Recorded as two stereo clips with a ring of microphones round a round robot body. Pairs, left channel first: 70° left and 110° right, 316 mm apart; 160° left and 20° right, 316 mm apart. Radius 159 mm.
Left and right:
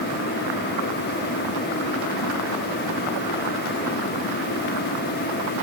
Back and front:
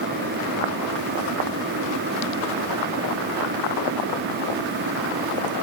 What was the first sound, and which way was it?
Only background noise.